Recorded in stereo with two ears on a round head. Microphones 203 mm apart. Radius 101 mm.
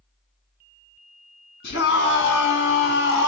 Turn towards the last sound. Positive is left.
turn(degrees=55)  # may be behind; listen again after turning